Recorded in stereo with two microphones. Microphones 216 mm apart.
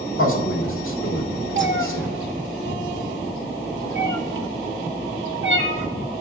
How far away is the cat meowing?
About 0.6 m.